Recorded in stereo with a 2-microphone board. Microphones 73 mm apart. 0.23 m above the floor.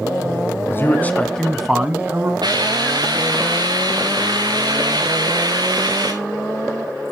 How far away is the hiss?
About 3 m.